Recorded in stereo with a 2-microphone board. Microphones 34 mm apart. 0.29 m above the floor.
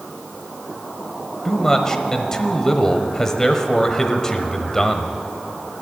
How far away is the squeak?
No squeak in this recording.